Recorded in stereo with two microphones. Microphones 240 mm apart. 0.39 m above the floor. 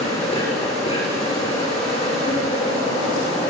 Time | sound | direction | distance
0.0 | an insect | 25° left (ahead or behind) | 7.5 m